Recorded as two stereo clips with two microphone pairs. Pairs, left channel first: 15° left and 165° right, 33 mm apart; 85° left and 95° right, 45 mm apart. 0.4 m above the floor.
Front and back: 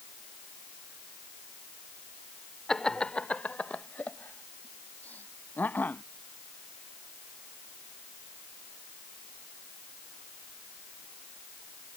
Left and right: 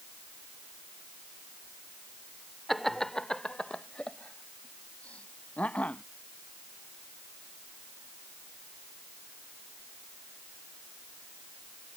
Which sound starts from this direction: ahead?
Laughter, at 2.7 s.